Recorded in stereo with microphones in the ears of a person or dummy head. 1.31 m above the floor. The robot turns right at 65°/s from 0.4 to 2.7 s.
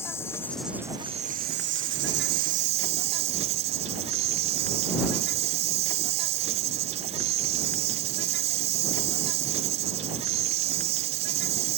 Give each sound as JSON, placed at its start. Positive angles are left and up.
{"t": 0.0, "sound": "an insect", "azimuth_deg": 170}